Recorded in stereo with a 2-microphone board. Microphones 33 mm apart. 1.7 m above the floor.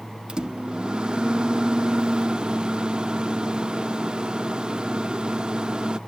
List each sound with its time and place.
0.3 s a microwave: 30° right (ahead or behind)